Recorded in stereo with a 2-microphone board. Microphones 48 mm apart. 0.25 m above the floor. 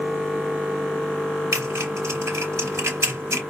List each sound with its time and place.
1.5 s typing on a keyboard: 70° right (ahead or behind), 3.5 m